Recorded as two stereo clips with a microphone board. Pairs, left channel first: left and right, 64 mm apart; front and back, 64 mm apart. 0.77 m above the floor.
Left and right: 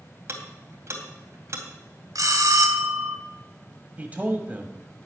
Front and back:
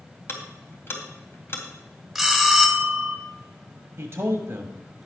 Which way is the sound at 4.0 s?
150° right.